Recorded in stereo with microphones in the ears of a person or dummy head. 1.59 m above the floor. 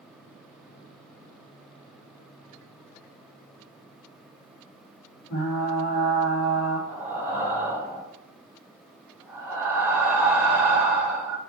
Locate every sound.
5.3 s frying: 50° left (ahead or behind), 2.5 m
6.9 s breathing: 10° right (ahead or behind), 1.5 m